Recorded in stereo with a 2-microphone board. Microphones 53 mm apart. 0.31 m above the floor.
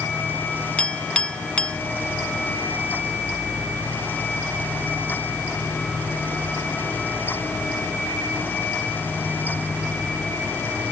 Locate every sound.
0.8 s a clink: 20° left (ahead or behind)